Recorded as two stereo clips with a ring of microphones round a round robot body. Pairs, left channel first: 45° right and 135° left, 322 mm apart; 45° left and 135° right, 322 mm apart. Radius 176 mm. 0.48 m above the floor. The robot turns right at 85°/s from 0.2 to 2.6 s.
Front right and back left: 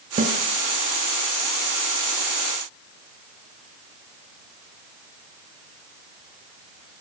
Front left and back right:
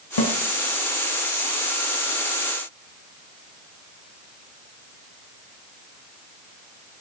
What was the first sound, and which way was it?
A snare drum, 65° left.